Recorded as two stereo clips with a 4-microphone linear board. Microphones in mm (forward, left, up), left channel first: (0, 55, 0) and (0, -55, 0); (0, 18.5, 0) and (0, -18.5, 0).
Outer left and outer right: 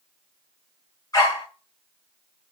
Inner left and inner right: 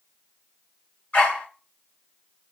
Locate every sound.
1.1 s a dog barking: 35° left (ahead or behind), 1.1 m